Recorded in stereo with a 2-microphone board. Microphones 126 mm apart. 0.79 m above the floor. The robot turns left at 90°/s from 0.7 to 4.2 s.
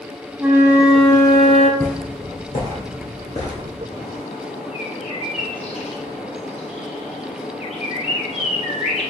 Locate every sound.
0.4 s a flute: 160° right, 0.6 m; by 1.7 s 110° left, 0.6 m
1.8 s footsteps: centre (ahead or behind), 2 m; by 3.8 s 35° left (ahead or behind), 1.4 m
3.9 s a bird: 50° left (ahead or behind), 0.8 m; by 9.1 s 55° left (ahead or behind), 0.8 m